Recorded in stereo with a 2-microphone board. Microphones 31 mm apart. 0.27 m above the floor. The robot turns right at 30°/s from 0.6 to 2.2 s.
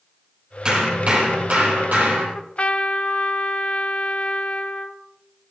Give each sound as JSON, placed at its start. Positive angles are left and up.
{"t": 0.7, "sound": "hammering", "azimuth_deg": -150, "distance_m": 5.0}
{"t": 2.4, "sound": "a trumpet", "side_deg": 40, "distance_m": 0.8}